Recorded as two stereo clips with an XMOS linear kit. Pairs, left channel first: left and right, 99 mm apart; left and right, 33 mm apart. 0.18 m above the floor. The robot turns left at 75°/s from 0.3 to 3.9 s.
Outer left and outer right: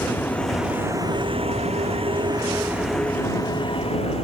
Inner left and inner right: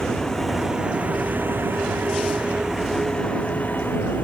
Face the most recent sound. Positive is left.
turn(degrees=105)